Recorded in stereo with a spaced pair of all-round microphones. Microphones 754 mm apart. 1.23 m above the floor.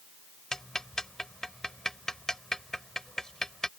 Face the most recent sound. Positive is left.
turn(degrees=0)  # may be behind; listen again after turning